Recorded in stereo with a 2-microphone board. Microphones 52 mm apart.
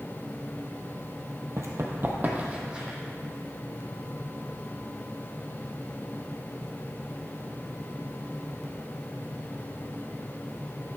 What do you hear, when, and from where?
1.6 s running footsteps: 60° right (ahead or behind), 1.3 m; by 3.0 s 15° right (ahead or behind), 2.5 m